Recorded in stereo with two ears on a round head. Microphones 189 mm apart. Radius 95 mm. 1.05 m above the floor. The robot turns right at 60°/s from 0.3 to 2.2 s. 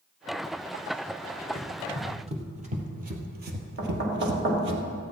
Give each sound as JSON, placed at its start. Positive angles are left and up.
{"t": 1.6, "sound": "running footsteps", "side_deg": 10, "distance_m": 2.0}
{"t": 3.8, "sound": "knocking", "side_deg": -55, "distance_m": 2.5}